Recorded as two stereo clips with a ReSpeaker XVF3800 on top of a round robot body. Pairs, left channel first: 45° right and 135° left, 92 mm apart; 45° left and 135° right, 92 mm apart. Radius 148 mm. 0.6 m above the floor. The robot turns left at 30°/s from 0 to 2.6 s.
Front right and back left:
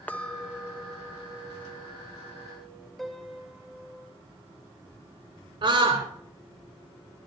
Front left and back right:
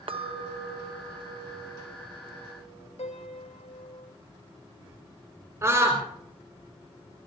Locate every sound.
0.1 s a clink: 120° right, 1.3 m; by 2.9 s 165° left, 1.3 m
3.0 s a piano: 45° left, 2 m
5.6 s a scream: 165° left, 3 m